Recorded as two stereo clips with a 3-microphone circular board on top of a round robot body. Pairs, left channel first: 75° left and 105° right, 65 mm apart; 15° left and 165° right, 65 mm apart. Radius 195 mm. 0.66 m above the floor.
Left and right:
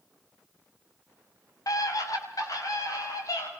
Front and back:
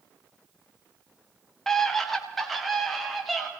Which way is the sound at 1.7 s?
100° left.